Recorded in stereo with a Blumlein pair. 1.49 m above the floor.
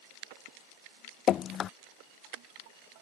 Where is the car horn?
I don't hear a car horn.